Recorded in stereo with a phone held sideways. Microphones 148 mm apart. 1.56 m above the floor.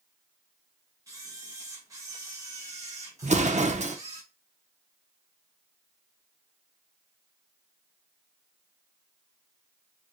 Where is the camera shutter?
20° right (ahead or behind), 0.9 m.